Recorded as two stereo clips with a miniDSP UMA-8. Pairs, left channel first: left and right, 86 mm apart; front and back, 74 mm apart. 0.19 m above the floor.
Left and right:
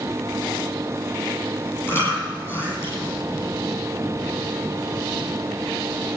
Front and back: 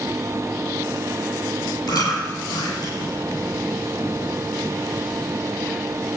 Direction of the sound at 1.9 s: 25° left.